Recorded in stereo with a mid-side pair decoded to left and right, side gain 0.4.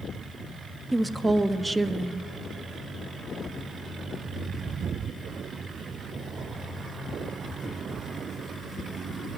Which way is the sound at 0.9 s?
15° right.